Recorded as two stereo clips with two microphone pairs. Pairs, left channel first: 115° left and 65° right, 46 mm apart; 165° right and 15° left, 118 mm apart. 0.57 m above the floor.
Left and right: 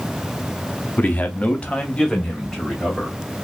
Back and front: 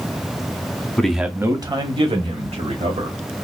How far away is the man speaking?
About 0.8 m.